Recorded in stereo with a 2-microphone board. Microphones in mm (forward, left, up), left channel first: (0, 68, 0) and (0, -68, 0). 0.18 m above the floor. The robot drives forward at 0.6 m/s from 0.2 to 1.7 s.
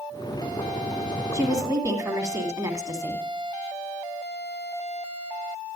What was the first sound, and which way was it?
A woman speaking, 25° right (ahead or behind).